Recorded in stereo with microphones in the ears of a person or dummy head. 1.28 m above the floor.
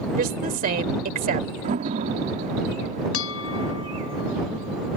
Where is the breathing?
No breathing in this recording.